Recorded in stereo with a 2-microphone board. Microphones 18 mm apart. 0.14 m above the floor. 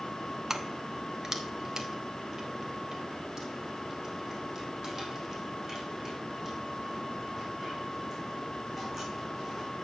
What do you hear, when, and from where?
0.5 s keys jangling: 30° right (ahead or behind), 1.0 m; by 9.7 s 25° right (ahead or behind), 8 m